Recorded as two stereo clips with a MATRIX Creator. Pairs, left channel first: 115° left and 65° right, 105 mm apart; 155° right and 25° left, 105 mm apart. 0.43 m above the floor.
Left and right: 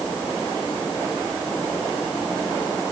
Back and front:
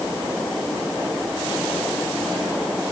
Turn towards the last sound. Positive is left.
No sound to turn to.